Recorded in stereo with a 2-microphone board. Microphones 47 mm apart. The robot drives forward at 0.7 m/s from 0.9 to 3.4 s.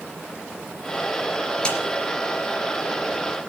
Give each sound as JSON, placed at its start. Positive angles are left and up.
{"t": 1.6, "sound": "a snare drum", "side_deg": 20, "distance_m": 3.5}